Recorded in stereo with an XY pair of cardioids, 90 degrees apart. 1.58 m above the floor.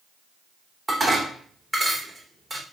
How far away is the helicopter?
No helicopter in this recording.